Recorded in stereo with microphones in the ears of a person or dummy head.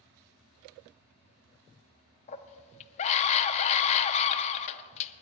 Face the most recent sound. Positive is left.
turn(degrees=30)  # may be behind; listen again after turning